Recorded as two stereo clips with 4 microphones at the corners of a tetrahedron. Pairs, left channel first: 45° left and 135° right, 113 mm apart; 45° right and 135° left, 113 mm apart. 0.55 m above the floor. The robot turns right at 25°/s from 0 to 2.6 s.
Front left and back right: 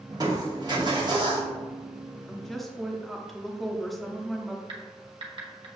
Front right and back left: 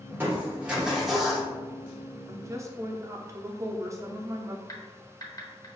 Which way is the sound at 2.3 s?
125° left.